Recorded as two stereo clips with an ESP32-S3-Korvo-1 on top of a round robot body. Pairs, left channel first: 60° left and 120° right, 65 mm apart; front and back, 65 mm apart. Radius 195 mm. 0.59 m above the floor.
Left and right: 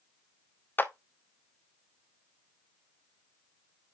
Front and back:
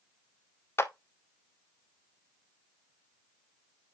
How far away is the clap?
About 1.0 m.